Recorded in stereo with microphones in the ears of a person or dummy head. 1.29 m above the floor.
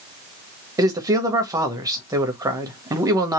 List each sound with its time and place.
0.8 s a man speaking: 15° right (ahead or behind), 1.2 m